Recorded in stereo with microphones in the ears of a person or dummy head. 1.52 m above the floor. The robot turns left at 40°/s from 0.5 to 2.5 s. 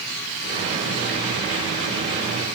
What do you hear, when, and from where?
Only background noise.